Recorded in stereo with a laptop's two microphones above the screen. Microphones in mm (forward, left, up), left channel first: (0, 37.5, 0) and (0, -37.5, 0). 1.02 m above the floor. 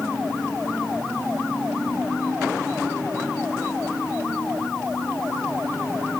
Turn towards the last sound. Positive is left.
No sound to turn to.